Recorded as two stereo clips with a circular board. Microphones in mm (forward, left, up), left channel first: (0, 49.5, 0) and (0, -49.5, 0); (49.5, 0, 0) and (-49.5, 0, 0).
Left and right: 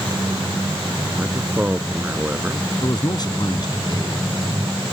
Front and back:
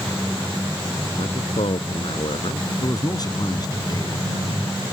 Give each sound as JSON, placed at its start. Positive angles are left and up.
{"t": 1.2, "sound": "a man speaking", "azimuth_deg": -15}
{"t": 2.8, "sound": "a man speaking", "azimuth_deg": 45}